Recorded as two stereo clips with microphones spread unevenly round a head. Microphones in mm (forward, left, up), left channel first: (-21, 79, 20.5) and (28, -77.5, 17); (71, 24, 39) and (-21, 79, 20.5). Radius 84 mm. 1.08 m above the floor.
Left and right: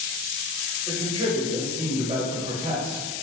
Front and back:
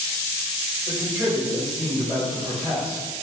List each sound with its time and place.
0.9 s a man speaking: 135° right, 1.9 m